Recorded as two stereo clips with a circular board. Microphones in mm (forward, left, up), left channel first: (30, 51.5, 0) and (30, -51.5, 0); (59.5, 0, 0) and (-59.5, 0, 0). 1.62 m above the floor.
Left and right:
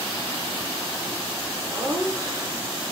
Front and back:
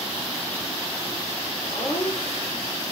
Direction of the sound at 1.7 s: 25° right.